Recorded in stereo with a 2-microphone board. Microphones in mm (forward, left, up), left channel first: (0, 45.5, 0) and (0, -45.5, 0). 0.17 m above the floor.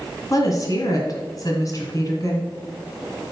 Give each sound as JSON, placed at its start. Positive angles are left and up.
{"t": 0.3, "sound": "a woman speaking", "side_deg": 40, "distance_m": 1.8}